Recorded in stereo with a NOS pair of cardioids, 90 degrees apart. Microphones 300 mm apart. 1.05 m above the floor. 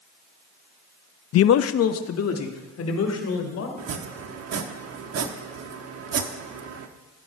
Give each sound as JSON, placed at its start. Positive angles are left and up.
{"t": 1.3, "sound": "a man speaking", "azimuth_deg": 50, "distance_m": 0.5}
{"t": 3.8, "sound": "chopping", "azimuth_deg": -55, "distance_m": 1.3}